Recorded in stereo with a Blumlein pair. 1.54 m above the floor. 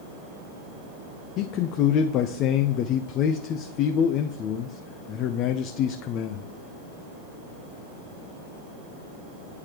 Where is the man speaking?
35° left, 0.5 m.